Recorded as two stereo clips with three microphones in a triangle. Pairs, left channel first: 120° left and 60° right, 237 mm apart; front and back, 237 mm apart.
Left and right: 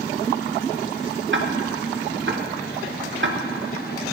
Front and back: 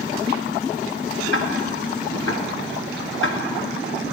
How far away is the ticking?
About 0.6 m.